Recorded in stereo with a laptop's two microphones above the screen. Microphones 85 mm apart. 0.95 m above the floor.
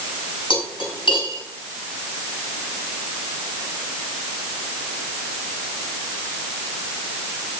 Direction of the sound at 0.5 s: 80° left.